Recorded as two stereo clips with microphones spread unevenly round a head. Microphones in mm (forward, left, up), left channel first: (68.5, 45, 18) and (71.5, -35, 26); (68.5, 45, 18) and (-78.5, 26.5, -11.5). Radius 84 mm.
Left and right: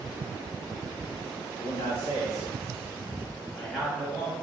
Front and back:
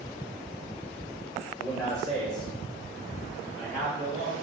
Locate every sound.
1.6 s a man speaking: 75° left, 0.9 m; by 4.3 s straight ahead, 1.6 m